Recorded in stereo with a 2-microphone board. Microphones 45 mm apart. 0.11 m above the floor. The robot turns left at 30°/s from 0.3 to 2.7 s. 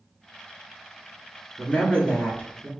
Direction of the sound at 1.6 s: 145° left.